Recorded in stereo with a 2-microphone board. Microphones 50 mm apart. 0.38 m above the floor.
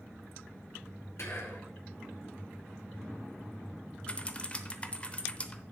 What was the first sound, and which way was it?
Whispering, 60° left (ahead or behind).